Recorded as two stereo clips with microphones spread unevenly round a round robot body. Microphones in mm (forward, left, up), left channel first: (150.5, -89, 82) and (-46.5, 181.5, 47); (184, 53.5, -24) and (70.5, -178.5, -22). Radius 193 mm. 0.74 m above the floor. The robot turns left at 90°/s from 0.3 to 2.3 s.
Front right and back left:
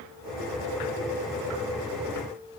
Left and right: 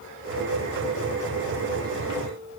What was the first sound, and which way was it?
Only background noise.